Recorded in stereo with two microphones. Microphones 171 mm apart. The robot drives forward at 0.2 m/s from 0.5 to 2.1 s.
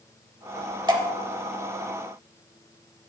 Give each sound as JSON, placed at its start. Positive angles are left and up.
{"t": 0.9, "sound": "dripping", "side_deg": -25, "distance_m": 0.9}